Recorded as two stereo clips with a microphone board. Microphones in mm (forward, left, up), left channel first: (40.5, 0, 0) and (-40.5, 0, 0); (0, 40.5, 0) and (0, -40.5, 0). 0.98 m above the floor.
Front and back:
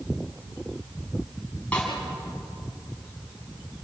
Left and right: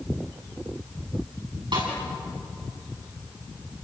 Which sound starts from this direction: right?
A snare drum, at 1.7 s.